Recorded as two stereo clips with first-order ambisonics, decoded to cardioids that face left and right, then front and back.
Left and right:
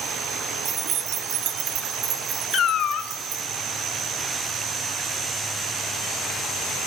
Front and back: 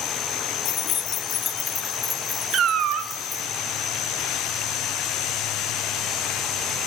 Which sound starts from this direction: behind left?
A cat meowing, at 2.5 s.